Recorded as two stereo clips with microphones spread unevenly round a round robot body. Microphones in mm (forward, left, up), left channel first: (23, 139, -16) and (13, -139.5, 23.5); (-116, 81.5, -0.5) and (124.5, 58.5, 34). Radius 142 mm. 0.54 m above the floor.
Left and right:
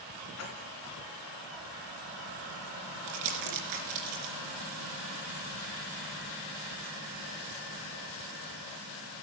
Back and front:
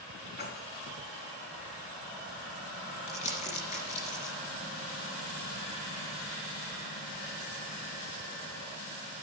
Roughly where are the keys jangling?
Behind left.